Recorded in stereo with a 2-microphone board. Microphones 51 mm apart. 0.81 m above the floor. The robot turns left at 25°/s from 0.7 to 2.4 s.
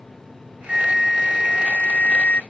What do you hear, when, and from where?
0.7 s a flute: 170° right; by 2.4 s 145° left